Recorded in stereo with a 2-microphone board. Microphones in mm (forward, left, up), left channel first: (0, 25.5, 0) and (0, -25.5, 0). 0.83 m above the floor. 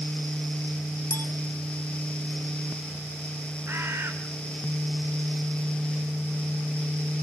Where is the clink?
60° left (ahead or behind), 3.5 m.